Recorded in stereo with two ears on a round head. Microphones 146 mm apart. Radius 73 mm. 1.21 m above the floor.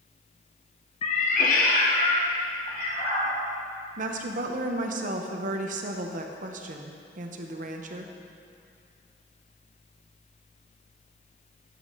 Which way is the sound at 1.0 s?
35° left (ahead or behind).